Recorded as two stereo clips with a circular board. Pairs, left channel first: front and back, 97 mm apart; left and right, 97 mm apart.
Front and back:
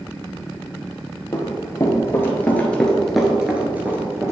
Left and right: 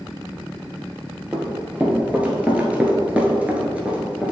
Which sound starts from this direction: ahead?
Running footsteps, at 1.3 s.